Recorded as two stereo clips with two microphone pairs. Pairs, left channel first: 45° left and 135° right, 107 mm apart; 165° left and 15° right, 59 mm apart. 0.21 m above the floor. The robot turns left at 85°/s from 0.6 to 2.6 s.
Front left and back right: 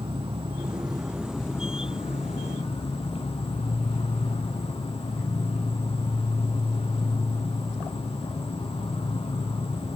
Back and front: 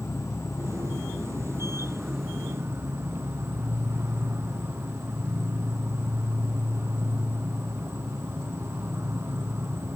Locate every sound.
0.0 s an insect: 165° right, 0.8 m; by 10.0 s 25° left, 0.8 m